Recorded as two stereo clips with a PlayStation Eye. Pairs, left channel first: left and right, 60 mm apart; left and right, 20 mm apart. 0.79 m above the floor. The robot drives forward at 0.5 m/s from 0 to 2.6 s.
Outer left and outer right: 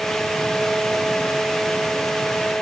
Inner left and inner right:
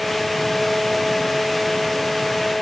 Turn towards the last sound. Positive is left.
No sound to turn to.